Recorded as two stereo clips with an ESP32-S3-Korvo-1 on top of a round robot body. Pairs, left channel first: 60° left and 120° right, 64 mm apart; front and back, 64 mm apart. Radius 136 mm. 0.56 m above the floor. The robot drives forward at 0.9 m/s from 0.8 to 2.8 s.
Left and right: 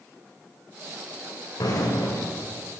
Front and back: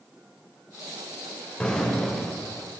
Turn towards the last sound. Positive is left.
turn(degrees=105)